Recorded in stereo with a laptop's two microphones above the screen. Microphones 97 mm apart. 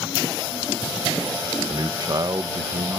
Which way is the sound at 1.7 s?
45° right (ahead or behind).